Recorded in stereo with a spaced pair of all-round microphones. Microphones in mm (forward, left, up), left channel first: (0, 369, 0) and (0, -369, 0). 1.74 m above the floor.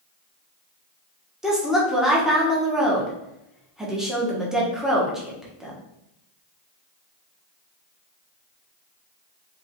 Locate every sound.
1.4 s a woman speaking: centre (ahead or behind), 1.2 m